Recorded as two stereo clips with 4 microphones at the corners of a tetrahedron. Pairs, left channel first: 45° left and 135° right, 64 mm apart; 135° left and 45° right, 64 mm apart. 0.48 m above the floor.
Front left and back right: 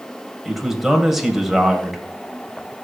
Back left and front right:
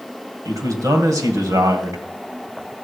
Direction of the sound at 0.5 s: 50° right.